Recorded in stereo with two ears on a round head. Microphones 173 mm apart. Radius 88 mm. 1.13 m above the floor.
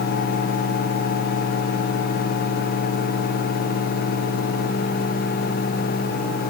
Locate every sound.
Only background noise.